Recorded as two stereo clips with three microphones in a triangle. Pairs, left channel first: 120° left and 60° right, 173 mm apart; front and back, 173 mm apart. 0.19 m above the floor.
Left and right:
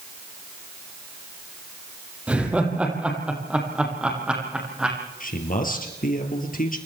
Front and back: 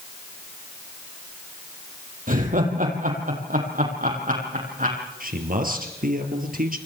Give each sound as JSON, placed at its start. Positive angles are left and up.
{"t": 2.3, "sound": "laughter", "azimuth_deg": -145, "distance_m": 6.0}
{"t": 5.2, "sound": "a man speaking", "azimuth_deg": 150, "distance_m": 4.5}